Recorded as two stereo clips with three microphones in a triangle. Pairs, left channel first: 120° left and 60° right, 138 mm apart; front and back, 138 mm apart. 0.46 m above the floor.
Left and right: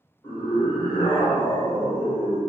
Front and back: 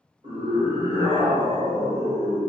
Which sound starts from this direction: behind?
A scream, at 0.2 s.